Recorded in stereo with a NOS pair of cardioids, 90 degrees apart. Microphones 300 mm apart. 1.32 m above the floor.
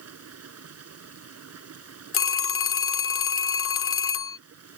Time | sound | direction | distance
0.0 | running water | 55° right | ?
2.1 | a phone ringing | 45° left | ?